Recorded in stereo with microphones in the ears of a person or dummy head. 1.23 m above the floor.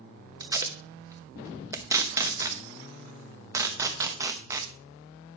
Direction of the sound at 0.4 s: 10° right (ahead or behind).